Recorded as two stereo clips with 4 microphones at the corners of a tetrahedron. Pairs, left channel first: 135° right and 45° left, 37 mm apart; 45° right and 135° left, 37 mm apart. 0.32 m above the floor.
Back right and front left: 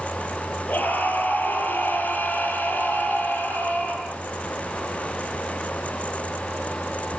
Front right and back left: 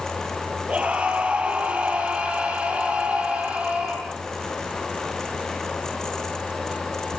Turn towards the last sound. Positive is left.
turn(degrees=-175)